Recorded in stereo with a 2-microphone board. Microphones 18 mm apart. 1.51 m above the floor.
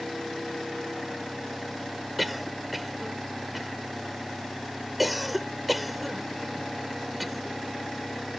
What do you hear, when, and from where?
2.2 s a cough: 5° right (ahead or behind)